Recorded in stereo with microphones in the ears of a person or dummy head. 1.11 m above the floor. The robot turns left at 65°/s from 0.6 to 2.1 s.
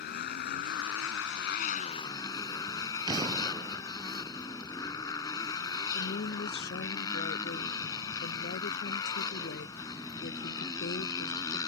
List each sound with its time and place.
0.0 s a motorcycle: 120° left; by 11.7 s 25° left
3.1 s an explosion: 25° right (ahead or behind)
5.9 s a woman speaking: 50° left (ahead or behind)